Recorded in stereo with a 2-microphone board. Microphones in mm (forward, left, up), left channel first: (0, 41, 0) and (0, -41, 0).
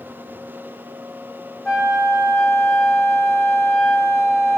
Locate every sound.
1.6 s a flute: 5° left (ahead or behind), 4 m